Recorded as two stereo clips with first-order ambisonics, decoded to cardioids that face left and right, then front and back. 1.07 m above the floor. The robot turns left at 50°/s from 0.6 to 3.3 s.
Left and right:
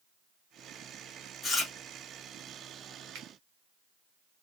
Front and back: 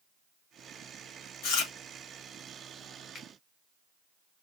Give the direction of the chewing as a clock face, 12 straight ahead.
11 o'clock.